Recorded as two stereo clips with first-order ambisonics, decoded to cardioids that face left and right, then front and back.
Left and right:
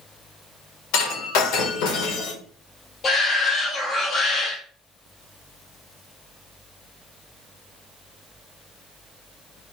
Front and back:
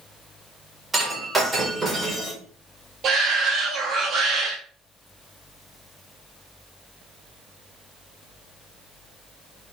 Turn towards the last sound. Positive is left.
turn(degrees=135)